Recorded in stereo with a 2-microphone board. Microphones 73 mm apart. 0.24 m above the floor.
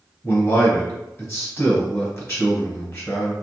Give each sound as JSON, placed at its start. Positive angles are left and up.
{"t": 0.2, "sound": "a man speaking", "side_deg": 40, "distance_m": 1.5}